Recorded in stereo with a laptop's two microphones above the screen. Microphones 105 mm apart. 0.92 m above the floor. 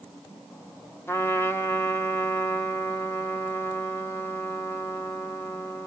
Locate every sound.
1.1 s a trumpet: 25° left (ahead or behind), 1.5 m